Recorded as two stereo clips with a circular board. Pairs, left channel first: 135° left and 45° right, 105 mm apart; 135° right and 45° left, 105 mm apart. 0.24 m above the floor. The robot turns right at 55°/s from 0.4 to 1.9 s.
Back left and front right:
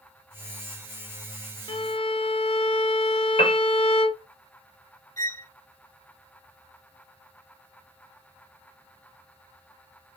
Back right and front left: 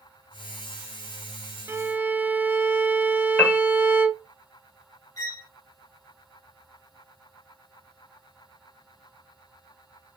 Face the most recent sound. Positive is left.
turn(degrees=-175)